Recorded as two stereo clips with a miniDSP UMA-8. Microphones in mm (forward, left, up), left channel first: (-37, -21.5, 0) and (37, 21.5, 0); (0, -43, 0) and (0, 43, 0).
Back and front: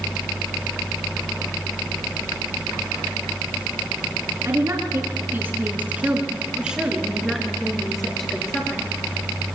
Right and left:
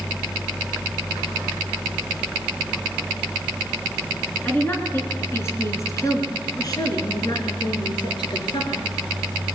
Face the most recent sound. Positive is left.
turn(degrees=-70)